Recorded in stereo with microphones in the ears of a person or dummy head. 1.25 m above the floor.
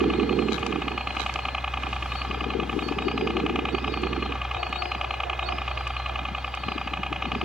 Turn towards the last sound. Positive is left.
turn(degrees=0)  # may be behind; listen again after turning